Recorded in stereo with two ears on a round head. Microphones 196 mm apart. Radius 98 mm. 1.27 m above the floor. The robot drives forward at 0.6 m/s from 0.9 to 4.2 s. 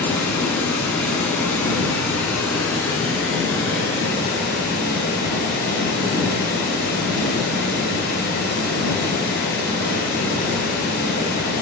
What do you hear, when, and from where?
0.0 s running water: 5° left (ahead or behind), 1.2 m